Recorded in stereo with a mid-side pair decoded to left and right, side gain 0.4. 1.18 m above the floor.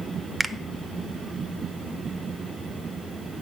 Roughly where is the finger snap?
Ahead.